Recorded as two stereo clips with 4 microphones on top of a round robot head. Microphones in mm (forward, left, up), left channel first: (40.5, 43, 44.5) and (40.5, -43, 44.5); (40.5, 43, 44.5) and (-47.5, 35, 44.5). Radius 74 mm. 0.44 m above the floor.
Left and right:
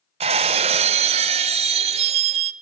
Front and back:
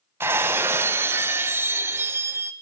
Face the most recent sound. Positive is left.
turn(degrees=-100)